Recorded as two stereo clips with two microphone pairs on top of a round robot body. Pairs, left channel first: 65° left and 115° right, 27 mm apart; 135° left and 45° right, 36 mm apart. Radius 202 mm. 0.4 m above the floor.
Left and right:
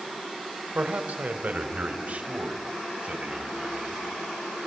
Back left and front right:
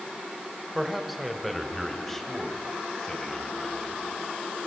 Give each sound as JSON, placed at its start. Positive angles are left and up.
{"t": 0.8, "sound": "a man speaking", "azimuth_deg": -125, "distance_m": 2.5}